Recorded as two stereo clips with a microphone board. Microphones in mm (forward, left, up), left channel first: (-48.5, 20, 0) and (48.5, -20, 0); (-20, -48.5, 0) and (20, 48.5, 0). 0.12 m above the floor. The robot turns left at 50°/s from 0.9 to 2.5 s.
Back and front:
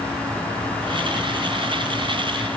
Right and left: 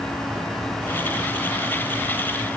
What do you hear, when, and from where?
Only background noise.